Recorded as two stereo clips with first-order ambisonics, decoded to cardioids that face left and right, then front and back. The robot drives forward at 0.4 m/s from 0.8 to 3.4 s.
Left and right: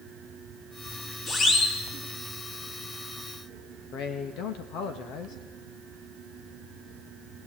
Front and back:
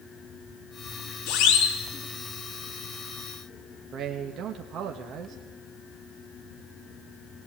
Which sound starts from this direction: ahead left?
A siren, at 1.3 s.